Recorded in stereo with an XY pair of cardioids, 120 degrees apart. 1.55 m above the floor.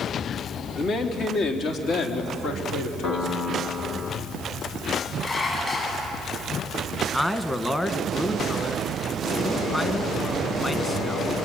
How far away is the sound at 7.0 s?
About 1.7 m.